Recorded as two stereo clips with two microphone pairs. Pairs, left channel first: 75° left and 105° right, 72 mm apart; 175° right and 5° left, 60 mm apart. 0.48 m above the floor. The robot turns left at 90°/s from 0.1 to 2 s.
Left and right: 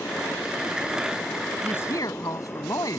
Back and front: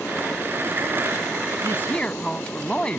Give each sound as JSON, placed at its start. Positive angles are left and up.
{"t": 1.6, "sound": "a woman speaking", "azimuth_deg": 145}